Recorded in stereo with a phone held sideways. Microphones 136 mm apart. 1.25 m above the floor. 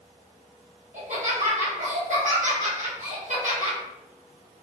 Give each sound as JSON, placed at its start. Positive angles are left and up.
{"t": 0.9, "sound": "laughter", "side_deg": -65, "distance_m": 1.1}